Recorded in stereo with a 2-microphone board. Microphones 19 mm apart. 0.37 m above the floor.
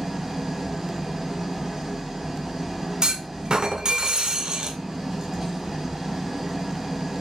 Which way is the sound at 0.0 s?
20° right (ahead or behind).